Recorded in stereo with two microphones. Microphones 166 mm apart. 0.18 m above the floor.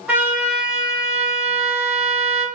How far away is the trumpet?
About 1.2 m.